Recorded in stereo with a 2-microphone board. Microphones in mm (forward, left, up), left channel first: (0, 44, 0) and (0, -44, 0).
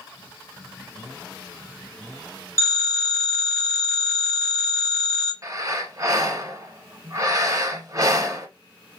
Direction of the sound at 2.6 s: 30° left (ahead or behind).